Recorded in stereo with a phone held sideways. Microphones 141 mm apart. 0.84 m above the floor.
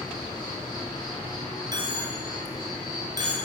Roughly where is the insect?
Left.